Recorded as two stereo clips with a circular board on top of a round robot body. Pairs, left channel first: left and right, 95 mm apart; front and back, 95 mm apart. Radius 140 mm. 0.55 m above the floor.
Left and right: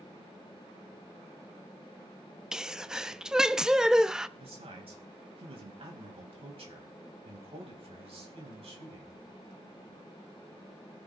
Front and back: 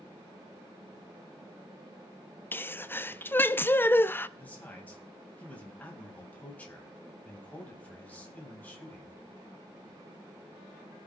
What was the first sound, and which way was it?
A sneeze, 20° right.